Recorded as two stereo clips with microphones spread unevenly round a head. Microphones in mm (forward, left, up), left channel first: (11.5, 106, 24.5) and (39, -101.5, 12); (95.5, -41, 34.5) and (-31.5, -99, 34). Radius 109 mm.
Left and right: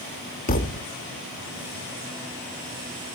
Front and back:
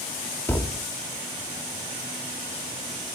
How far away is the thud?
About 1.1 m.